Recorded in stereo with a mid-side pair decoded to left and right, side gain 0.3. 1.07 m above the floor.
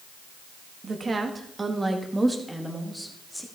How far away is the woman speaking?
About 1.7 m.